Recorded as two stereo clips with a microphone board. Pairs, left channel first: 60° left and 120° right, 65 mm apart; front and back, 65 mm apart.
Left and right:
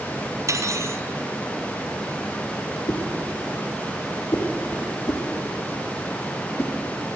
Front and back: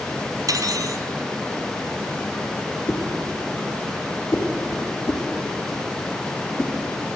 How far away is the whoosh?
About 4 m.